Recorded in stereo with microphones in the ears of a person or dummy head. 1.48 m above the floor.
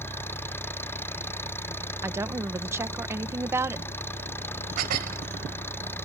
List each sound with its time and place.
0.0 s an engine running: 15° left (ahead or behind)
2.0 s a woman speaking: 15° right (ahead or behind)
4.8 s dishes clattering: 50° right (ahead or behind)